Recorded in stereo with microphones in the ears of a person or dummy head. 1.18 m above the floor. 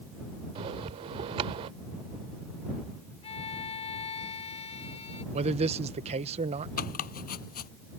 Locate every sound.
0.6 s a bell: 30° right (ahead or behind)
3.2 s a violin: 30° left (ahead or behind)
5.3 s a man speaking: 35° right (ahead or behind)
6.8 s chopping: 50° left (ahead or behind)